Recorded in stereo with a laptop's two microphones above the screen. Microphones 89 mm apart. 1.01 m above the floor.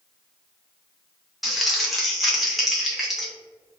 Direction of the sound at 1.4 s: Centre (ahead or behind).